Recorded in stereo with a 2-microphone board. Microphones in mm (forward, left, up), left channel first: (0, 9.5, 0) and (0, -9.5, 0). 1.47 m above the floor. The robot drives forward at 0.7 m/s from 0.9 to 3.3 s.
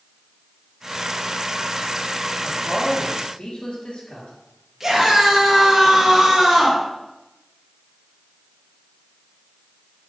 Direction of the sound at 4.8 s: 20° right (ahead or behind).